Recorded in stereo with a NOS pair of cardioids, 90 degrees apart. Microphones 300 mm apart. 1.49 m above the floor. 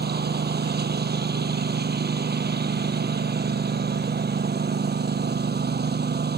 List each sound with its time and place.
0.0 s a lawn mower: 30° right